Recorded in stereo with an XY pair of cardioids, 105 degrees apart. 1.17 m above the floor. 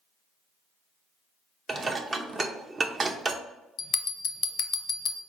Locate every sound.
1.7 s dishes clattering: 35° right, 0.6 m
3.8 s a bell: 60° left, 0.6 m